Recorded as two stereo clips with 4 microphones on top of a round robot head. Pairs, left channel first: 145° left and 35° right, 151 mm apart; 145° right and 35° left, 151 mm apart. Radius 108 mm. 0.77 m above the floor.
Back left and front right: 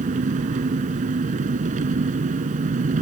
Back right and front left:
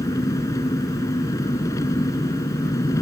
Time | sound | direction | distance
0.0 | an engine running | 75° right | ?